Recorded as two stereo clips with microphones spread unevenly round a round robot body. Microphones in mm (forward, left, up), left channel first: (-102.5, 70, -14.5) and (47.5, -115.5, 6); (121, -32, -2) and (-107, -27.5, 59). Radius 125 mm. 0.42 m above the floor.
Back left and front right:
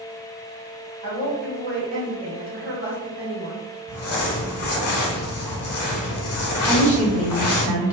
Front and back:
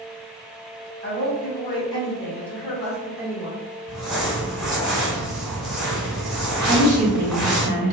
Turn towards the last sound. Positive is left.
turn(degrees=-135)